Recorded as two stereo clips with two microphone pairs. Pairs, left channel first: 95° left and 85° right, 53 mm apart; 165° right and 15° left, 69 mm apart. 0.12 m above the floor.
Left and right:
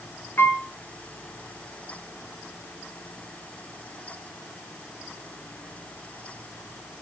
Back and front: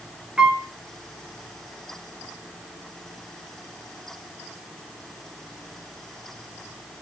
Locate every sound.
0.4 s a piano: 85° left, 1.7 m